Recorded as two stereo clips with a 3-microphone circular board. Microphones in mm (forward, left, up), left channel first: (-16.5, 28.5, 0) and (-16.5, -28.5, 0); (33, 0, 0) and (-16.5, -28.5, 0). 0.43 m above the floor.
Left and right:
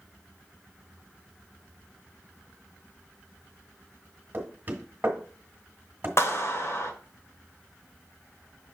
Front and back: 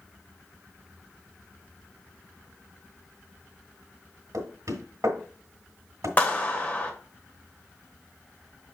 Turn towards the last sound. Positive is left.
turn(degrees=85)